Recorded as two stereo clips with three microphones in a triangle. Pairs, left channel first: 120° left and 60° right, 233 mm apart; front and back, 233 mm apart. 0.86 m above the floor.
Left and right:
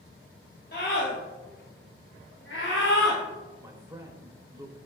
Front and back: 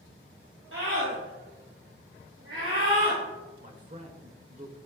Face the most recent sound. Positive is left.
turn(degrees=-130)